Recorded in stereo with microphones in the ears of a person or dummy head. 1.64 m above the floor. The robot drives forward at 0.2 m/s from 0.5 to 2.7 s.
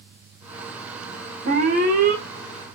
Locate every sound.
1.4 s an alarm: 45° right (ahead or behind), 0.8 m; by 2.2 s 40° right (ahead or behind), 0.8 m